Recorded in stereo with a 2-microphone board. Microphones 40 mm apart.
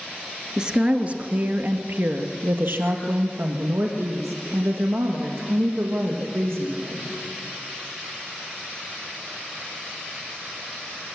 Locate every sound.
0.6 s a woman speaking: 20° right (ahead or behind), 1.5 m; by 7.1 s 80° right, 5.5 m